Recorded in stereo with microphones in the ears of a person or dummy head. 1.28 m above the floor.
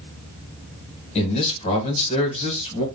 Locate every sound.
1.1 s a man speaking: 35° left (ahead or behind), 1.3 m